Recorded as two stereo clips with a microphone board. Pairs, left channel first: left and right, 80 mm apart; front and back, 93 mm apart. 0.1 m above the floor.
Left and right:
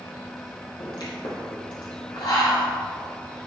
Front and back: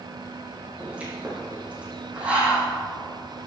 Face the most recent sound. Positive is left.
turn(degrees=105)